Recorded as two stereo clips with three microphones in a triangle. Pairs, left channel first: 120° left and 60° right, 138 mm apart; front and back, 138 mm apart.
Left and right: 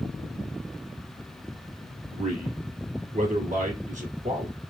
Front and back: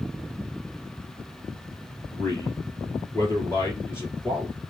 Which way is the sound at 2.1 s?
65° right.